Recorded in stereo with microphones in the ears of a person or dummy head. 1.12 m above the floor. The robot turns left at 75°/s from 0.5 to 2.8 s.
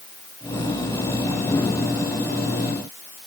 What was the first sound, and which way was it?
Only background noise.